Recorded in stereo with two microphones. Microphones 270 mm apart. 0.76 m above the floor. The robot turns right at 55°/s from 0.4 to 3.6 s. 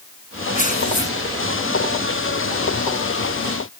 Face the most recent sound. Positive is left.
turn(degrees=-165)